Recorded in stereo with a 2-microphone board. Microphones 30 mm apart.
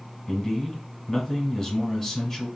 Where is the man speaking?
15° left (ahead or behind), 1.1 m.